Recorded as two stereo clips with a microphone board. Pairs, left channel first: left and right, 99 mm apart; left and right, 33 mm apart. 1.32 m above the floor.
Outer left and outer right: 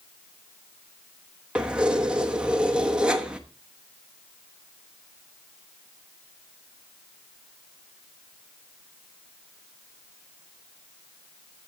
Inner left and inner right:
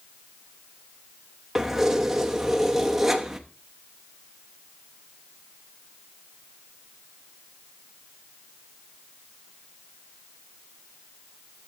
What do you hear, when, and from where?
1.6 s keys jangling: 10° right (ahead or behind), 1.0 m